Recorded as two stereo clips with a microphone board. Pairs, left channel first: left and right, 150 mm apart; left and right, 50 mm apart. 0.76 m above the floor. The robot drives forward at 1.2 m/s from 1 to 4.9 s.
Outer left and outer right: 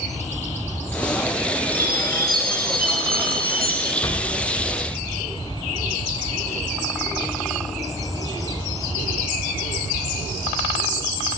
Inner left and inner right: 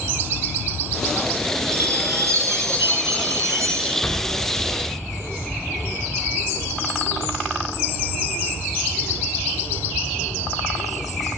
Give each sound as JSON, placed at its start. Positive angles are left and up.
{"t": 1.7, "sound": "a chime", "side_deg": -80, "distance_m": 7.0}
{"t": 4.0, "sound": "an explosion", "side_deg": 20, "distance_m": 4.0}